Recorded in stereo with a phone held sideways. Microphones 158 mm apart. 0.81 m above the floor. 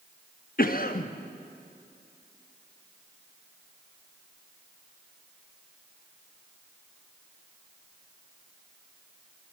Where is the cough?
60° left (ahead or behind), 0.8 m.